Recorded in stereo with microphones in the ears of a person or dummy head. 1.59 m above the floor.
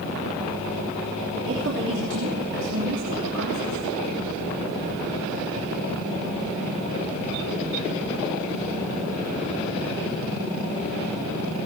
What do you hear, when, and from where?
1.5 s a woman speaking: 60° right (ahead or behind), 3 m